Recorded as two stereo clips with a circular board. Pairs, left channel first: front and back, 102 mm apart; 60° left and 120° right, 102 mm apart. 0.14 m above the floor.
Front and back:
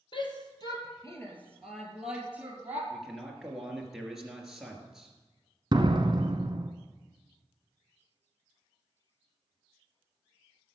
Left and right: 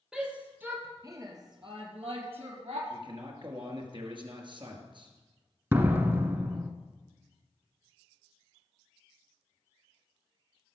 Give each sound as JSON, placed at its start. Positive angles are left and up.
{"t": 0.1, "sound": "a shout", "azimuth_deg": -35, "distance_m": 3.0}
{"t": 2.9, "sound": "a man speaking", "azimuth_deg": -95, "distance_m": 2.5}
{"t": 5.7, "sound": "a door slam", "azimuth_deg": 180, "distance_m": 1.3}